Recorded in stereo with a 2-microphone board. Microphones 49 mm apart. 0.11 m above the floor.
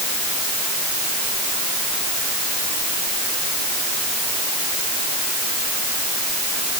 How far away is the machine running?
I don't hear a machine running.